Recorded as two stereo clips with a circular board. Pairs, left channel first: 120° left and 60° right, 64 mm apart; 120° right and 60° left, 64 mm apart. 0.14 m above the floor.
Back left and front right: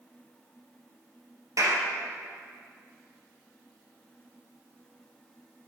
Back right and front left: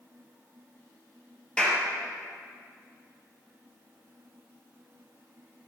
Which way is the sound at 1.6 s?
45° right.